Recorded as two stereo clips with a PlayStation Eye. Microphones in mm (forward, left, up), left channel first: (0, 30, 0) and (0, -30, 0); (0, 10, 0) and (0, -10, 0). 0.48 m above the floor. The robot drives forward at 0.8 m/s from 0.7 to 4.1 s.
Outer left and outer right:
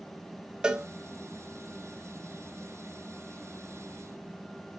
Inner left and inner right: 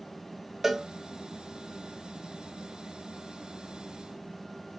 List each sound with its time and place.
0.6 s a cowbell: 15° right (ahead or behind), 0.5 m